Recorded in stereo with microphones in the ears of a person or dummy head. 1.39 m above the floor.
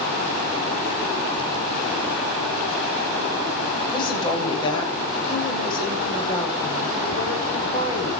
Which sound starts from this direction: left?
A woman speaking, at 3.9 s.